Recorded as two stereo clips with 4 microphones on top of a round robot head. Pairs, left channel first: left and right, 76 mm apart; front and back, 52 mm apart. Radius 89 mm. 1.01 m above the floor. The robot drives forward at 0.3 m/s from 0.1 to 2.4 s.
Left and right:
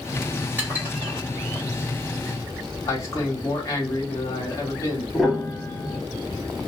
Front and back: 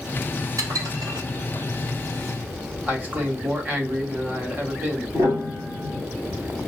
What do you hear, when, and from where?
0.6 s dishes clattering: 160° right, 1.1 m; by 1.6 s 165° right, 1.4 m
2.9 s a man speaking: 135° left, 1.3 m
5.1 s a piano: straight behind, 1.2 m